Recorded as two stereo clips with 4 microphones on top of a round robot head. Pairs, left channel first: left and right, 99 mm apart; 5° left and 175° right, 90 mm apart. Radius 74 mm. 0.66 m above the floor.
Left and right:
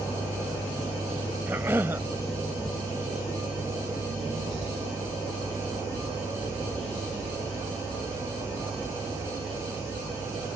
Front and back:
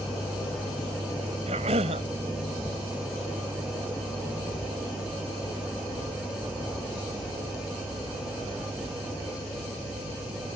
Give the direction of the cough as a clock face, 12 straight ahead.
5 o'clock.